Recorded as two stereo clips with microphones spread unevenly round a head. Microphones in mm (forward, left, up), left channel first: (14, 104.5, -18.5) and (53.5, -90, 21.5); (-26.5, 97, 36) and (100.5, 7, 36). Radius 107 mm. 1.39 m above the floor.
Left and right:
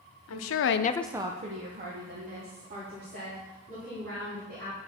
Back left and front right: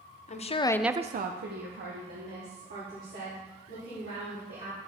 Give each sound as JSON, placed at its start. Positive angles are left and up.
{"t": 0.3, "sound": "a woman speaking", "azimuth_deg": 105, "distance_m": 0.9}